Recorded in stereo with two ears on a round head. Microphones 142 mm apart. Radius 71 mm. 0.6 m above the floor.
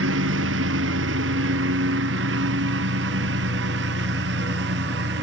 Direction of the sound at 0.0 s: 80° right.